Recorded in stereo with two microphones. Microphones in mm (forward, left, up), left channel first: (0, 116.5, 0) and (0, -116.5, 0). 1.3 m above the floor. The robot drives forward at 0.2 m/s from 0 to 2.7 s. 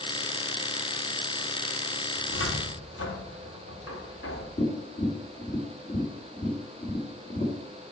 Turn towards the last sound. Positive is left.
turn(degrees=35)  # may be behind; listen again after turning